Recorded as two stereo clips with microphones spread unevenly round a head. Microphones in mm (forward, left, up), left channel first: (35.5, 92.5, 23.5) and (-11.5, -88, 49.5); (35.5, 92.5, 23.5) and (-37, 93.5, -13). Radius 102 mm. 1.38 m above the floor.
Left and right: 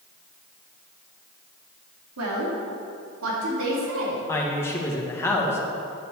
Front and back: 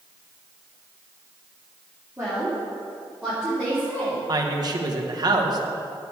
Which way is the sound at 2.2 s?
105° right.